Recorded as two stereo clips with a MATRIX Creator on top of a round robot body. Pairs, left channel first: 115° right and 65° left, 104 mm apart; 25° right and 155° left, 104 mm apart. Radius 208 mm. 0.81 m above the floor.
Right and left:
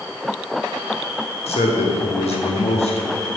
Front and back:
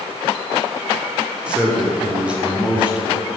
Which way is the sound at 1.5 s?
125° right.